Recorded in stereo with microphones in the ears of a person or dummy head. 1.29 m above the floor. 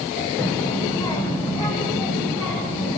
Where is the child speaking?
20° left (ahead or behind), 2.5 m; by 3.0 s 25° left (ahead or behind), 6.5 m.